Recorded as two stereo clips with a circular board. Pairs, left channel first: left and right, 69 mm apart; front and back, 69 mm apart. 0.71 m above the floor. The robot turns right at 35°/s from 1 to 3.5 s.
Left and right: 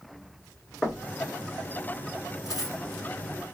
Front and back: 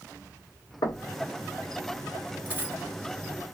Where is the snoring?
No snoring in this recording.